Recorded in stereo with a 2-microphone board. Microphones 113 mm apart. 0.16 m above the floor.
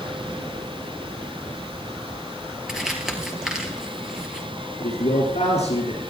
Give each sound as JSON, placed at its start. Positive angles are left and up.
{"t": 2.7, "sound": "crumpling", "side_deg": -5, "distance_m": 2.5}
{"t": 4.8, "sound": "a man speaking", "side_deg": 75, "distance_m": 8.0}